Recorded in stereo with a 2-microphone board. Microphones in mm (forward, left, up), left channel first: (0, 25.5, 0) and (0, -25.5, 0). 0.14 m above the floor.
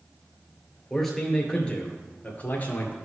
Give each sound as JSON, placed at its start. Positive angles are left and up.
{"t": 0.9, "sound": "a man speaking", "side_deg": 5, "distance_m": 2.0}